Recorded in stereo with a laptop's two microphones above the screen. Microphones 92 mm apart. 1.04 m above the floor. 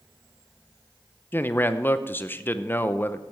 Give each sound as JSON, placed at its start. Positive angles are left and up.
{"t": 1.3, "sound": "a man speaking", "side_deg": 25, "distance_m": 0.6}